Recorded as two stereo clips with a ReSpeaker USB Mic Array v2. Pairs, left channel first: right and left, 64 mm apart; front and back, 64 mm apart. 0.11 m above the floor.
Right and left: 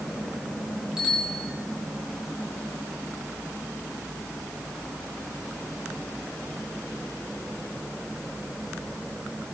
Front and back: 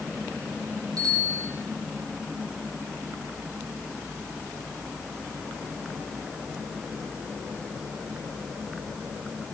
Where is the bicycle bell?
170° left, 8 m.